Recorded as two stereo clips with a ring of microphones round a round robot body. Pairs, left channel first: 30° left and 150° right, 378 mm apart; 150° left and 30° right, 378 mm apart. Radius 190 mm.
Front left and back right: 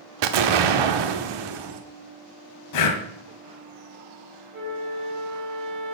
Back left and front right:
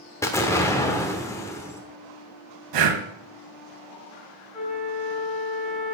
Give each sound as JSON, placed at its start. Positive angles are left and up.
{"t": 0.2, "sound": "an explosion", "azimuth_deg": -130, "distance_m": 1.0}
{"t": 2.7, "sound": "breathing", "azimuth_deg": -5, "distance_m": 1.2}
{"t": 4.5, "sound": "a flute", "azimuth_deg": -115, "distance_m": 5.0}